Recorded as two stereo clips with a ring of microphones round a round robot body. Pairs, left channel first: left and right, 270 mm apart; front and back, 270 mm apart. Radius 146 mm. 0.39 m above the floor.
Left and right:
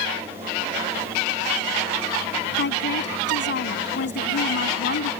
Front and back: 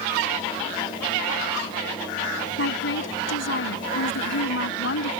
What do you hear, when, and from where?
2.6 s a woman speaking: 40° left